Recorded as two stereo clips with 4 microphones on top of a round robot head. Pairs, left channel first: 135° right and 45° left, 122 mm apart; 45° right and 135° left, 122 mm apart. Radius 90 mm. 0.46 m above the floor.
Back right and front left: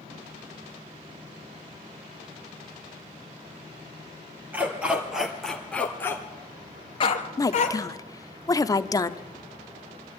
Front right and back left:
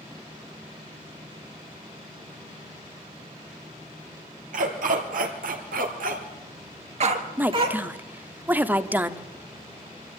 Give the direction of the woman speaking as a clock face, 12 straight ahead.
5 o'clock.